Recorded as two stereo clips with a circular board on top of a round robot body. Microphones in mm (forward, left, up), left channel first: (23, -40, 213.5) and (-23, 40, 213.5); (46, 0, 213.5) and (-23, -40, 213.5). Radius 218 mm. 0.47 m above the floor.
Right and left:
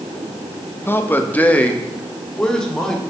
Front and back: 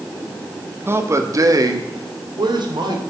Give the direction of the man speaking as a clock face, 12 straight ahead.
4 o'clock.